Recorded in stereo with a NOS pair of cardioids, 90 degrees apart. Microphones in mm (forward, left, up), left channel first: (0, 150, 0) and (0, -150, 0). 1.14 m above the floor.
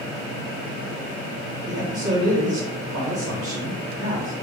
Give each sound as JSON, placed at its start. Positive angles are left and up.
{"t": 1.7, "sound": "a man speaking", "azimuth_deg": -15, "distance_m": 1.2}